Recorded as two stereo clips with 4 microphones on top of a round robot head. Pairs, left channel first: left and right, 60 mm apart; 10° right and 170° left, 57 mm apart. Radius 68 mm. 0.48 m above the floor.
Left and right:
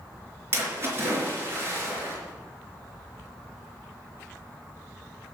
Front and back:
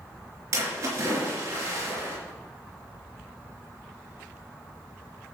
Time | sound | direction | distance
0.5 | a splash | 140° right | 4 m